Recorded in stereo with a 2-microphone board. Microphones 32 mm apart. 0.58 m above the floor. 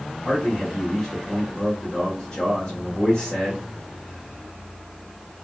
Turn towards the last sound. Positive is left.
turn(degrees=40)  # may be behind; listen again after turning